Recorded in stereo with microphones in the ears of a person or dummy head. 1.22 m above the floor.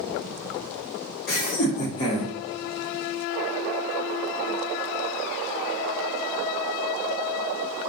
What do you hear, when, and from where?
1.3 s laughter: 50° left (ahead or behind), 1.2 m; by 2.3 s 5° left (ahead or behind), 0.7 m